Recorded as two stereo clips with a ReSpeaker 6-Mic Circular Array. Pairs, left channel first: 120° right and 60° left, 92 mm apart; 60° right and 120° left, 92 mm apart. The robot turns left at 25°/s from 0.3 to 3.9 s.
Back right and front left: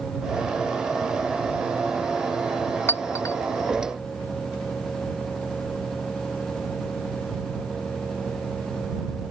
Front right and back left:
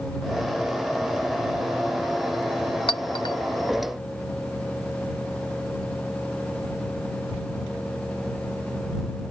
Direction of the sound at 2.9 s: 60° right.